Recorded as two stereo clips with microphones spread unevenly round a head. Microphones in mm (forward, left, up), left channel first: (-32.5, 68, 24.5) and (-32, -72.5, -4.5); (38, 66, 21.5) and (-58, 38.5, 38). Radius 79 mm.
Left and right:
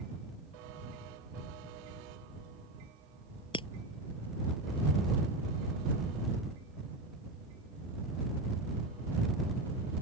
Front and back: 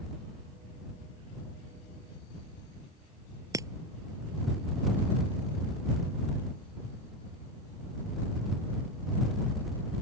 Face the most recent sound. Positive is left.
turn(degrees=140)